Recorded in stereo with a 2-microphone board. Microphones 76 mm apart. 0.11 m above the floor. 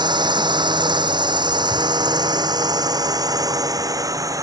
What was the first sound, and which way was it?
A drone, 75° right (ahead or behind).